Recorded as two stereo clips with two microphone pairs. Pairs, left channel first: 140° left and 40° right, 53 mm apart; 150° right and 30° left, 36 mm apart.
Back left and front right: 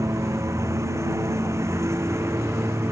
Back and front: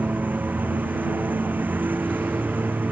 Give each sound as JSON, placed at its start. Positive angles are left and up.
{"t": 0.0, "sound": "a lawn mower", "azimuth_deg": -10}